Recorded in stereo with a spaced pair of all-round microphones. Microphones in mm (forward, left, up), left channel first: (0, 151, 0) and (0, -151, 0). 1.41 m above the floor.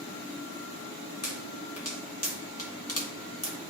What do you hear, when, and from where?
1.2 s a pop: 55° left (ahead or behind), 1.6 m